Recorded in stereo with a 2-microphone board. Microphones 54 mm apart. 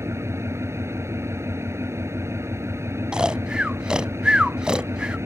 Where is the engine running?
65° right (ahead or behind).